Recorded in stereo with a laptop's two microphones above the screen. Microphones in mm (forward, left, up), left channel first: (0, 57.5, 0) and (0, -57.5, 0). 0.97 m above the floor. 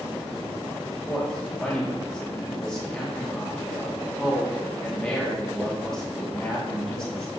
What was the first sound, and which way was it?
A man speaking, 5° left (ahead or behind).